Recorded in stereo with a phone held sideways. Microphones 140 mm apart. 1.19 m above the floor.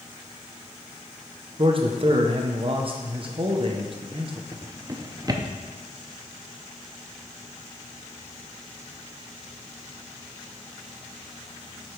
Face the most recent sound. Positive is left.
turn(degrees=-25)  # may be behind; listen again after turning